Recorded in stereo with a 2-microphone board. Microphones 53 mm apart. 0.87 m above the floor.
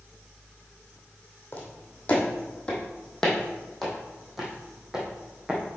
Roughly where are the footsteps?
Left.